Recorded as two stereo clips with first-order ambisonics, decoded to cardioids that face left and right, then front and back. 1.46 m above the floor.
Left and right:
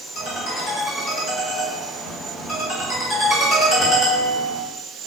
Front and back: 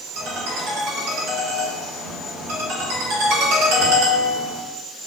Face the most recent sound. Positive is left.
turn(degrees=155)